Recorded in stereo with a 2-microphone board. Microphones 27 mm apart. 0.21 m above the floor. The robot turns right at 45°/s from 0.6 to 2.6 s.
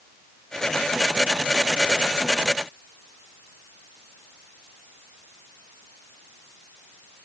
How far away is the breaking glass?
I don't hear breaking glass.